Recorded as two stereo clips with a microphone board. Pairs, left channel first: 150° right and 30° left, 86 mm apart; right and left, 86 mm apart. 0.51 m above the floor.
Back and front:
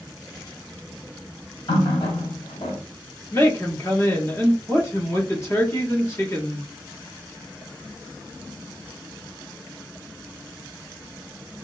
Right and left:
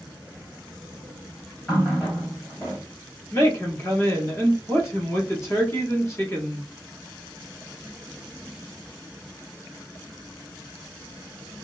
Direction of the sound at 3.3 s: 115° right.